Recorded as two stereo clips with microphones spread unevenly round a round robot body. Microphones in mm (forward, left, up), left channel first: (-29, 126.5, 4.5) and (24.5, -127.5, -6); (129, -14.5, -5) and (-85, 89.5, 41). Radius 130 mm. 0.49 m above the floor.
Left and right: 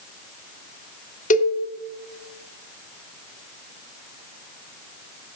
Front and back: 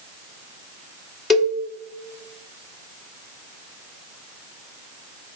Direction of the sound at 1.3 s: 50° left.